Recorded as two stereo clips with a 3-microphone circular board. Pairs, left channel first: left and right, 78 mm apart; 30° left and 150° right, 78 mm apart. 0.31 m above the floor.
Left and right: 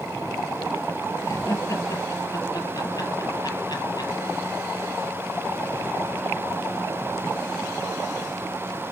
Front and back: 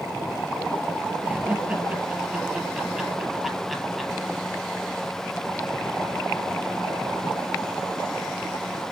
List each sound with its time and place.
1.2 s laughter: 140° left, 6.5 m; by 4.1 s 120° left, 6.5 m